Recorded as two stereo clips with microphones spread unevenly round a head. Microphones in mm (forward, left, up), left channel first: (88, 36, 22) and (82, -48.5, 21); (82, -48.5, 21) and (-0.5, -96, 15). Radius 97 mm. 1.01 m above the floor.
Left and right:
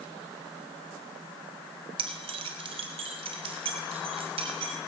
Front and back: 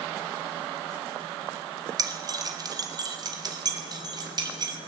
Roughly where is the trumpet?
No trumpet in this recording.